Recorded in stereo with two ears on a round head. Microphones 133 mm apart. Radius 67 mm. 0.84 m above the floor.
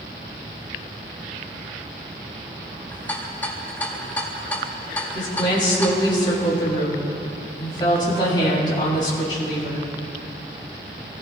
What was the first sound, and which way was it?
A rattle, 10° left (ahead or behind).